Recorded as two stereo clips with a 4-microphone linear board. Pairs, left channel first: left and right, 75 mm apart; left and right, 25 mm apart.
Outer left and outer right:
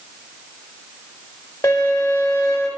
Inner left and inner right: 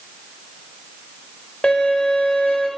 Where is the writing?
No writing in this recording.